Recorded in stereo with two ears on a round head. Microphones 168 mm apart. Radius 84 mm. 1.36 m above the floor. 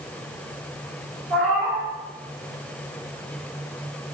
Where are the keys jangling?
No keys jangling in this recording.